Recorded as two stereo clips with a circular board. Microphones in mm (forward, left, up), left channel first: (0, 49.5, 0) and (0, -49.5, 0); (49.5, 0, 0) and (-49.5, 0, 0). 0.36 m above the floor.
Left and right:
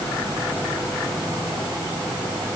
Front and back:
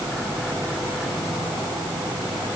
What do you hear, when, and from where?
Only background noise.